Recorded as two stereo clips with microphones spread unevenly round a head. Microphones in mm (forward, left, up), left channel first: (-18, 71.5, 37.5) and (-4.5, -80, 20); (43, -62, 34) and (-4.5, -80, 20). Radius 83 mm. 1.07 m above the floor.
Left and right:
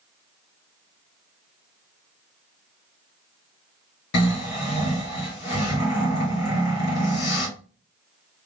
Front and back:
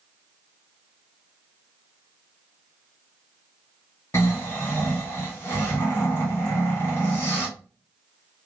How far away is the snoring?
About 2.5 m.